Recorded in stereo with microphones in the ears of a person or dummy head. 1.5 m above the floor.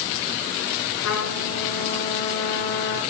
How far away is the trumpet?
About 7.5 m.